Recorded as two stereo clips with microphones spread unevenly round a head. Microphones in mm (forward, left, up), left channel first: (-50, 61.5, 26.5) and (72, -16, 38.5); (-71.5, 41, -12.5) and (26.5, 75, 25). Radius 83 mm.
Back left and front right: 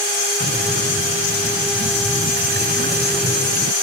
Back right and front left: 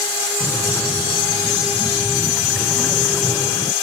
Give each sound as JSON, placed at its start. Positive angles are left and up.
{"t": 0.4, "sound": "breathing", "azimuth_deg": -70}